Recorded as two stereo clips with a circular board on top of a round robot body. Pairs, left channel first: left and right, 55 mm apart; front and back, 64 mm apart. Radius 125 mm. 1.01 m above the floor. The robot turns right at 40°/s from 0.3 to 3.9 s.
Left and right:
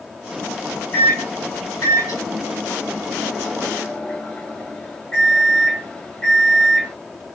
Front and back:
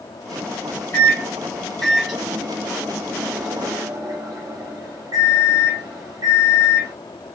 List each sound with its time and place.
0.9 s a microwave: 50° left, 1.3 m; by 7.0 s 165° left, 1.3 m